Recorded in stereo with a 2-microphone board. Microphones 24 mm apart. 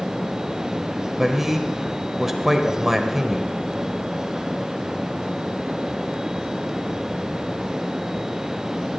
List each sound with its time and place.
1.2 s a man speaking: 15° right (ahead or behind), 1.3 m